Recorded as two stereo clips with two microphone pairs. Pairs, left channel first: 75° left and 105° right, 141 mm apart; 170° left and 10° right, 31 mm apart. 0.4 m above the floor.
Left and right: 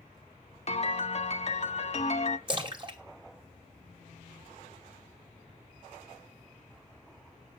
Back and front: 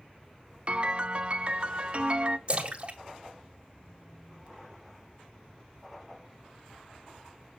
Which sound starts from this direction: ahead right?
A splash, at 2.5 s.